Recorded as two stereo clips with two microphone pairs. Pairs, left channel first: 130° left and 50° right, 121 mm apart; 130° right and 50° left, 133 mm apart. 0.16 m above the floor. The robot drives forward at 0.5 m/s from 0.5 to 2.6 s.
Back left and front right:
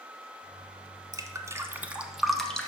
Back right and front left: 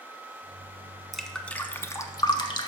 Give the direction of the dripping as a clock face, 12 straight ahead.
1 o'clock.